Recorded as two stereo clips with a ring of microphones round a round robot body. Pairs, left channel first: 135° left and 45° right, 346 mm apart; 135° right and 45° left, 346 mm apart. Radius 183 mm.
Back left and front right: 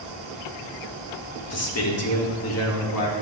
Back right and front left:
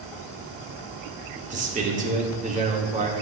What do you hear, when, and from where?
1.5 s a man speaking: 105° left, 1.7 m